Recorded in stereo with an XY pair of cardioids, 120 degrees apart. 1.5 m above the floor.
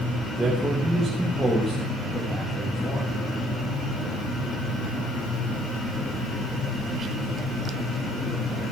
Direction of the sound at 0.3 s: 25° right.